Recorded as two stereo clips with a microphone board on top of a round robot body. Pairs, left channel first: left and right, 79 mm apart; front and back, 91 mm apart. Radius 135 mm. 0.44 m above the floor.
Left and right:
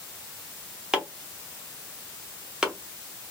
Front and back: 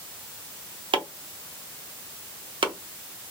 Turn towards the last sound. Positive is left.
turn(degrees=-165)